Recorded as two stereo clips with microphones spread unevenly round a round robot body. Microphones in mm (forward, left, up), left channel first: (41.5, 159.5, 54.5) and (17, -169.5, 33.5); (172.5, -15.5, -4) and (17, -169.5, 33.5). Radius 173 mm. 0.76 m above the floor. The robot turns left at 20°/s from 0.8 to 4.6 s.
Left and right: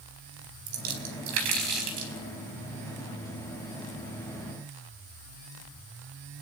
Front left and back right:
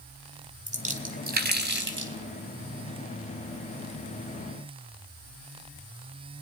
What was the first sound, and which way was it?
A splash, 75° right.